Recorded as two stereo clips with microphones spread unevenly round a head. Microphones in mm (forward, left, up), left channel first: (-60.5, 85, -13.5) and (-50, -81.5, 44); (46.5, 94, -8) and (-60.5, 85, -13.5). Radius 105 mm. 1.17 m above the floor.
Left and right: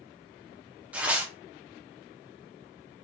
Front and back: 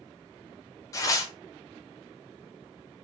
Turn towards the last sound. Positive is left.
turn(degrees=25)